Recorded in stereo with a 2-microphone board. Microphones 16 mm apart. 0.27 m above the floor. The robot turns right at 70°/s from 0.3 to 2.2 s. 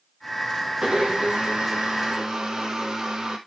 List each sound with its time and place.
0.8 s a blender: 140° right, 2.5 m; by 3.4 s 45° right, 2.5 m